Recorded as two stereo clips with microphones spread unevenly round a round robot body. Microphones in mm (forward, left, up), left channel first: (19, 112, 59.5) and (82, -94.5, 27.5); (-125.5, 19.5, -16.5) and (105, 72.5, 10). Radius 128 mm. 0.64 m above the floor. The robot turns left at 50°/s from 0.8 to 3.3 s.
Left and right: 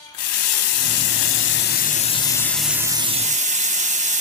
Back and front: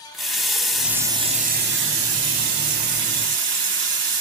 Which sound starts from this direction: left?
A running tap, at 0.1 s.